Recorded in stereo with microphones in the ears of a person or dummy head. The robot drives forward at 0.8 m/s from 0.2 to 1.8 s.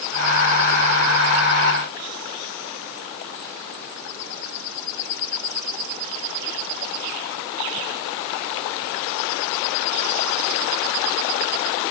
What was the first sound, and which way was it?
Only background noise.